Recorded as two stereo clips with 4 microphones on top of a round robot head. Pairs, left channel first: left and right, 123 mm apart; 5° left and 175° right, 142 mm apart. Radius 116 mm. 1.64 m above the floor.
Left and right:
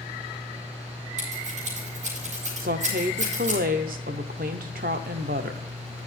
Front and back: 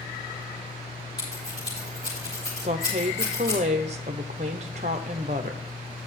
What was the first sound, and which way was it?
Scissors, 65° right.